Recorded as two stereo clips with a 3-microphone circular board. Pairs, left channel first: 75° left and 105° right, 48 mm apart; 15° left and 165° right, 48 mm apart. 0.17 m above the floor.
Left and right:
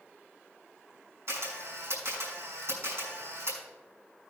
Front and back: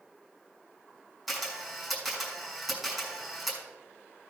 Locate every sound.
1.3 s a camera shutter: 80° right, 5 m